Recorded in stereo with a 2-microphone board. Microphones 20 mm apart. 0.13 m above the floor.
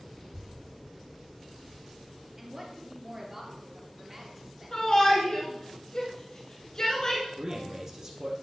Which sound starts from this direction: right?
A man speaking, at 7.4 s.